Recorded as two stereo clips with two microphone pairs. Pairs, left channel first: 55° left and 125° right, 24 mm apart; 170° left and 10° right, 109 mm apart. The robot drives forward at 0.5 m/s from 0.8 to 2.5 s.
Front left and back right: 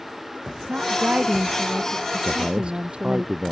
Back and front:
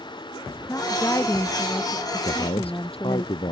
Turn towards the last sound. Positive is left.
turn(degrees=-165)